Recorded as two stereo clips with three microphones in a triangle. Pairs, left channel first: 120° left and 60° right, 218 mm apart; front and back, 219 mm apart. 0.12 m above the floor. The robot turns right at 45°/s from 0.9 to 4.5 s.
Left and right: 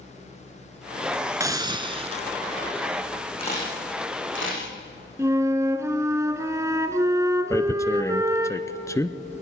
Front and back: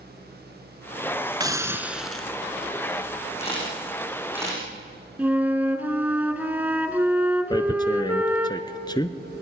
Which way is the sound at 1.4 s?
120° right.